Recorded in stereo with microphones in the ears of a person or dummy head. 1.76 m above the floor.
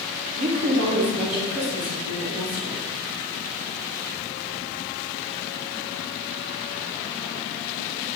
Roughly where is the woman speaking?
Right.